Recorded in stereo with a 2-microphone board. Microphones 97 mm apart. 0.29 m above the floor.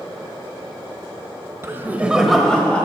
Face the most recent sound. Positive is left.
turn(degrees=15)  # may be behind; listen again after turning